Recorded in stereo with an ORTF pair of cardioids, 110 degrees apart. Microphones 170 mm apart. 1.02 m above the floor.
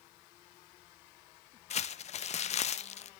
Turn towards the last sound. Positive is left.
turn(degrees=40)